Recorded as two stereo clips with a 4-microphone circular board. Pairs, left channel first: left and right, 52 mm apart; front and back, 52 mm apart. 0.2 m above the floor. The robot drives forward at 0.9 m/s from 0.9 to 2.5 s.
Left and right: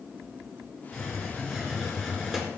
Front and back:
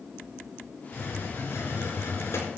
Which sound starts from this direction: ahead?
A hiss, at 0.9 s.